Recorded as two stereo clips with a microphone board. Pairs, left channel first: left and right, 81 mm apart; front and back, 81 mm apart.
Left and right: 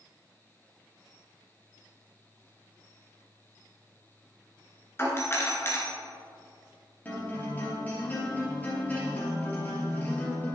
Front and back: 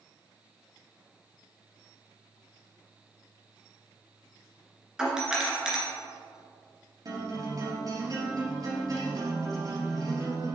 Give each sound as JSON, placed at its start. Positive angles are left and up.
{"t": 5.0, "sound": "a doorbell", "azimuth_deg": 105, "distance_m": 1.8}
{"t": 7.0, "sound": "a guitar", "azimuth_deg": 155, "distance_m": 2.5}